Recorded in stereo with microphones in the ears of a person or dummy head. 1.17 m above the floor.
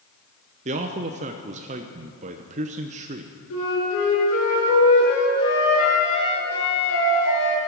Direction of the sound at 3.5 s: 85° left.